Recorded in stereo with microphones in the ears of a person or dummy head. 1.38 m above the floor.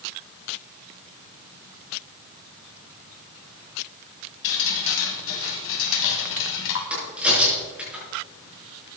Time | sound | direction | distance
4.4 | dripping | 60° left (ahead or behind) | 2 m
6.9 | a crack | 5° right (ahead or behind) | 5.5 m